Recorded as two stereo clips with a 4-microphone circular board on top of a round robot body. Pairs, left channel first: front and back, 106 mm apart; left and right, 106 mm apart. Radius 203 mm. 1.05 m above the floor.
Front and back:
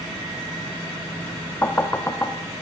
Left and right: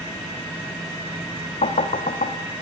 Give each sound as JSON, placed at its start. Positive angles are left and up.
{"t": 1.6, "sound": "knocking", "azimuth_deg": 75, "distance_m": 1.3}